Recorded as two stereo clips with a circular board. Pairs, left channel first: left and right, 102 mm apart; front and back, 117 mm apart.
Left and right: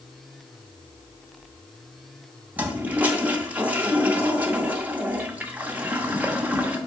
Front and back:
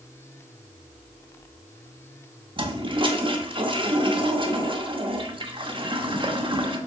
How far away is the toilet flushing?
About 0.9 m.